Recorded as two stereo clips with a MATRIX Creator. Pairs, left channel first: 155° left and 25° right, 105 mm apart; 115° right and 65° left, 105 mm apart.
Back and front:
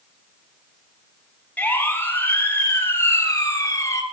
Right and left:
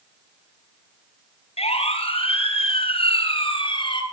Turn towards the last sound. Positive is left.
turn(degrees=-145)